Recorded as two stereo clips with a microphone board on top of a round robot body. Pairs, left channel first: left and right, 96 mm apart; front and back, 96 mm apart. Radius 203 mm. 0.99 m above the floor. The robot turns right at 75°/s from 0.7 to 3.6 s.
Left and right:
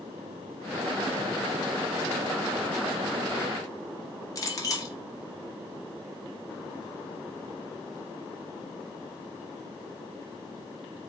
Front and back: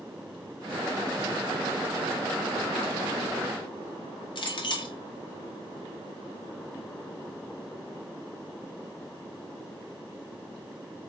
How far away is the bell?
I don't hear a bell.